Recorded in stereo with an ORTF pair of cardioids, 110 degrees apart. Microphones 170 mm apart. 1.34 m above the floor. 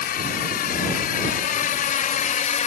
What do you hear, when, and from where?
0.0 s a drone: 65° left; by 2.7 s 55° left